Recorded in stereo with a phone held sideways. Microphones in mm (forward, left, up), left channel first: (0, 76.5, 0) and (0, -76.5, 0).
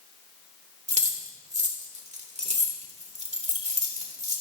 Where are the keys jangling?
50° right (ahead or behind), 2.5 m.